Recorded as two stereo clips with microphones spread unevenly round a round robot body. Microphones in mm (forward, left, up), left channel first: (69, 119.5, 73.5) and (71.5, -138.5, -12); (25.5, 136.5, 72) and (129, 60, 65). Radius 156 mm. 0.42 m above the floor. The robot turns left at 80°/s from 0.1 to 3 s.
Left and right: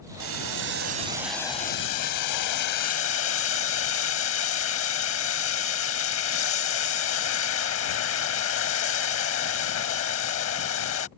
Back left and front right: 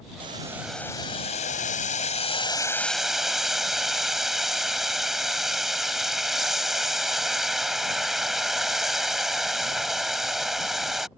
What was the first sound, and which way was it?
Boiling, 85° right.